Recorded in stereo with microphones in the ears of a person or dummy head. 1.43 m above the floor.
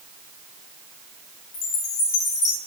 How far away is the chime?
About 1.4 m.